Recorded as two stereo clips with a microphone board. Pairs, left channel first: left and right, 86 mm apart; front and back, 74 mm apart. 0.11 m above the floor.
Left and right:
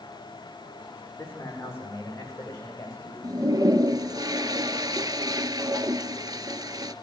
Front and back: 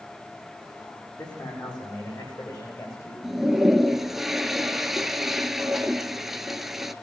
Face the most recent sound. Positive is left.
turn(degrees=-95)